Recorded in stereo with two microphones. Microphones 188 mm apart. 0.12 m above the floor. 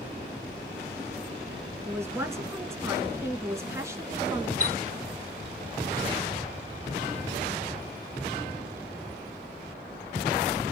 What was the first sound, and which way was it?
A man speaking, 15° right (ahead or behind).